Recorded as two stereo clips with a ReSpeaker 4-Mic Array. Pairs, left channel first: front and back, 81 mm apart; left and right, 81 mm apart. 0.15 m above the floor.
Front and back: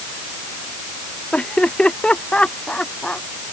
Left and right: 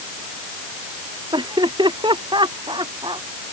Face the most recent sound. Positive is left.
turn(degrees=-75)